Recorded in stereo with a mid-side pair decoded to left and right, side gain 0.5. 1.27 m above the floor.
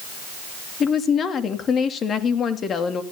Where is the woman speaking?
50° left, 3 m.